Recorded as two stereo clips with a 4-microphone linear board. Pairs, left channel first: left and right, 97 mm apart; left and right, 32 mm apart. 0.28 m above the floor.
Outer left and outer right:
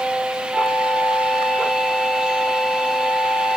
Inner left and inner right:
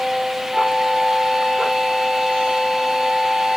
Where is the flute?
5° right (ahead or behind), 2.5 m.